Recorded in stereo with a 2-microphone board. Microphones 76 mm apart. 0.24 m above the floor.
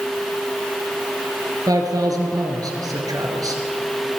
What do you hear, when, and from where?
1.7 s a man speaking: 55° right (ahead or behind), 3.5 m